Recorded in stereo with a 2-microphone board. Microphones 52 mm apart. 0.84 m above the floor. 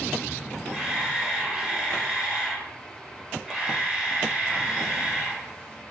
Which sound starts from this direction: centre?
A camera shutter, at 0.7 s.